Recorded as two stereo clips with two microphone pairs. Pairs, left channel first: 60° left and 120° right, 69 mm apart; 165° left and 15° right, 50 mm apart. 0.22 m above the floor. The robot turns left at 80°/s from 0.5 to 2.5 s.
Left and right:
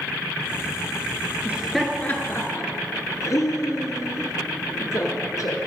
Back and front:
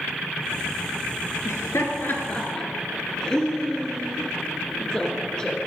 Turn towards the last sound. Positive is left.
turn(degrees=90)